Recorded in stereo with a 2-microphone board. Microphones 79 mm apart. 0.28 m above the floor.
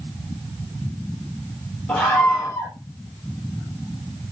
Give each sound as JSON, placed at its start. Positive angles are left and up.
{"t": 1.9, "sound": "a scream", "side_deg": 15, "distance_m": 6.5}